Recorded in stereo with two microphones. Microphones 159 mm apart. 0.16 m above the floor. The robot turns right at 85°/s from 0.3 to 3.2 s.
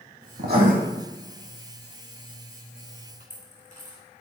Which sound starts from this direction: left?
A dropped coin, at 3.2 s.